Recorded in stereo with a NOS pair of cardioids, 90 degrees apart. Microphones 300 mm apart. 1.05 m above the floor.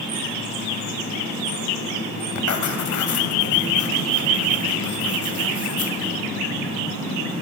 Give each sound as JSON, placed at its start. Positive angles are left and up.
{"t": 2.4, "sound": "writing", "azimuth_deg": 65, "distance_m": 2.5}